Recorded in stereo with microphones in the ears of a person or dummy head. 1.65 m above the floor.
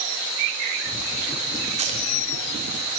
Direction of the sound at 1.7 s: 30° right (ahead or behind).